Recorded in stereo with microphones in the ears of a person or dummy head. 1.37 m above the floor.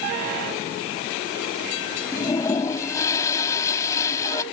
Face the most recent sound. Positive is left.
turn(degrees=15)  # may be behind; listen again after turning